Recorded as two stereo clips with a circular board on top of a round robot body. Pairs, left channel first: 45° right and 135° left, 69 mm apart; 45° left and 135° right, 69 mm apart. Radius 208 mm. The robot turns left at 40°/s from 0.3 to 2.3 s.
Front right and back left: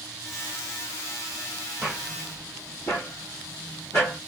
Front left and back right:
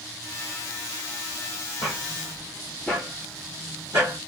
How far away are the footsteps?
About 1.6 m.